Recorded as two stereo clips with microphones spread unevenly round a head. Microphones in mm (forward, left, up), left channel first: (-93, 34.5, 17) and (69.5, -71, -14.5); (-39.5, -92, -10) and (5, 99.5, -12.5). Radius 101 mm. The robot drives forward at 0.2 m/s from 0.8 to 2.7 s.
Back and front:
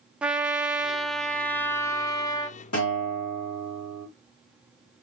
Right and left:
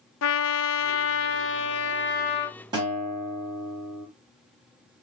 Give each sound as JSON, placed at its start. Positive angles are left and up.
{"t": 0.2, "sound": "a trumpet", "azimuth_deg": -115, "distance_m": 0.5}
{"t": 2.7, "sound": "a guitar", "azimuth_deg": 145, "distance_m": 3.0}